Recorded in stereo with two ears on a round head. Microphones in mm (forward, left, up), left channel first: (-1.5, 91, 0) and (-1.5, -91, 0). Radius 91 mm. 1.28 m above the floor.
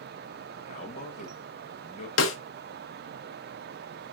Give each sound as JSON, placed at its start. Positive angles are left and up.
{"t": 0.7, "sound": "a man speaking", "side_deg": 35, "distance_m": 1.4}
{"t": 2.2, "sound": "a snare drum", "side_deg": 75, "distance_m": 0.9}